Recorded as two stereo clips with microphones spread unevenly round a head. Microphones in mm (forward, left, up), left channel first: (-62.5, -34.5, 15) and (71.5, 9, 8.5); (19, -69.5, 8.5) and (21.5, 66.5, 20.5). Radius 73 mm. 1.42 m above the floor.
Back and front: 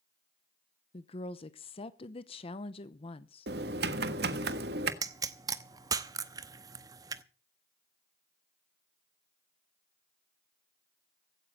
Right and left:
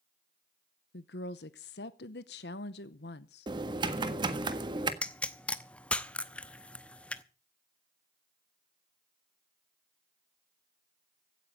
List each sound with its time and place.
0.9 s a woman speaking: 110° right, 0.8 m
3.5 s typing on a keyboard: 35° left, 1.5 m
5.0 s a pop: 10° right, 0.8 m